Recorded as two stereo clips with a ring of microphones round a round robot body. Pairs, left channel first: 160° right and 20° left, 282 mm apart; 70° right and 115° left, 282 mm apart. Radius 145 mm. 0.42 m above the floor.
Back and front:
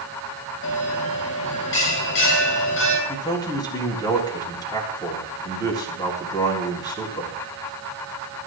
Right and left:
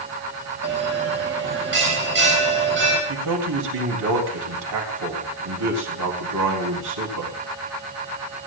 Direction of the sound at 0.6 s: 160° left.